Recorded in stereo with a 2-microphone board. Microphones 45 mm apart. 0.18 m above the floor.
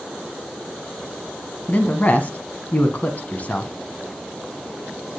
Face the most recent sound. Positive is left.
turn(degrees=30)  # may be behind; listen again after turning